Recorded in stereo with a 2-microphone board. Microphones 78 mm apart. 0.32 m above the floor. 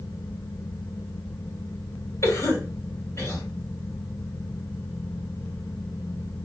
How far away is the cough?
About 2 m.